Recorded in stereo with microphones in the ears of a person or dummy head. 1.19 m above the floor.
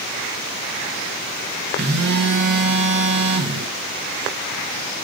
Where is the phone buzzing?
60° right (ahead or behind), 0.7 m.